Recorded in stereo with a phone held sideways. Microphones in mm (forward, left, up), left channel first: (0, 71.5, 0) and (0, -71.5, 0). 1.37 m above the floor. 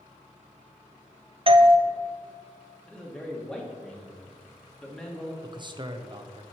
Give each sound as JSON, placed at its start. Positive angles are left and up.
{"t": 1.5, "sound": "a doorbell", "side_deg": -40, "distance_m": 0.5}
{"t": 2.9, "sound": "a man speaking", "side_deg": 5, "distance_m": 1.7}
{"t": 5.4, "sound": "a man speaking", "side_deg": -35, "distance_m": 0.9}